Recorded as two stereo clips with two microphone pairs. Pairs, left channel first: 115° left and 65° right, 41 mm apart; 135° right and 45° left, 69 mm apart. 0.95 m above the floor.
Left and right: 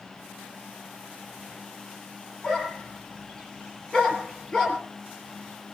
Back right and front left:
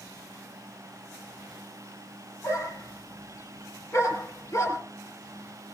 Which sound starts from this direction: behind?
A dog barking, at 2.4 s.